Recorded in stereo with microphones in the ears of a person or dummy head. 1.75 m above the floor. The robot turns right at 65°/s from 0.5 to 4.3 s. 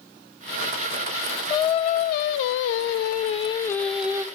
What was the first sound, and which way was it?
Singing, 20° left.